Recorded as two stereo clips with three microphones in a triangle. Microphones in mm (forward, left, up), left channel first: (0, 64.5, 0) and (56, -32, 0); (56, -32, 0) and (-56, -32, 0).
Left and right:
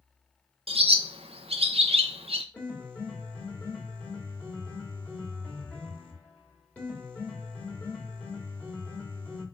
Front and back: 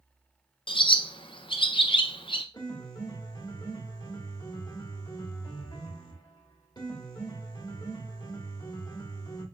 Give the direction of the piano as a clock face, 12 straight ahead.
10 o'clock.